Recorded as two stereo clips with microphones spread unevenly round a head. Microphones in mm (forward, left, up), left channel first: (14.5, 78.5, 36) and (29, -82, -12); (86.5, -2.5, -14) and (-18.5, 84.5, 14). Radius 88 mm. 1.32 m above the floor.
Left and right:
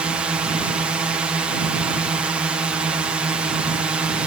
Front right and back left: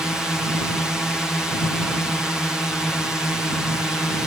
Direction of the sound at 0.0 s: 115° right.